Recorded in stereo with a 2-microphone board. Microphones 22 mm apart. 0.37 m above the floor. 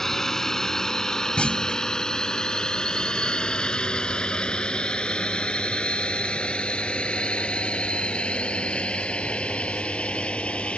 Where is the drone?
20° left (ahead or behind); by 10.8 s 70° left (ahead or behind).